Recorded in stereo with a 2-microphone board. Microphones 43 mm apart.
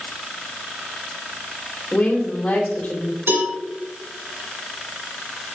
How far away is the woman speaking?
About 3 m.